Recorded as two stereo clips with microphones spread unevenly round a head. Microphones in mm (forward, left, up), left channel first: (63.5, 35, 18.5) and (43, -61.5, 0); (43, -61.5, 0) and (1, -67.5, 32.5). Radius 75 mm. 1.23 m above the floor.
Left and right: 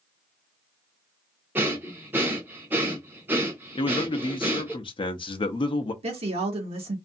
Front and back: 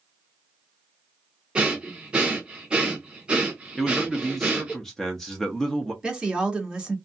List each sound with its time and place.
1.6 s breathing: 175° left, 0.6 m
3.8 s a man speaking: 45° left, 0.6 m
6.0 s a woman speaking: 90° right, 1.6 m